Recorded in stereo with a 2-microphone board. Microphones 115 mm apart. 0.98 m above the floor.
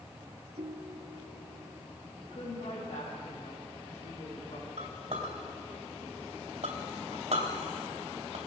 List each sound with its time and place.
0.6 s a ringtone: 65° right (ahead or behind), 1.1 m
2.2 s a woman speaking: 70° left (ahead or behind), 5.5 m
4.8 s a clink: 70° right (ahead or behind), 2.5 m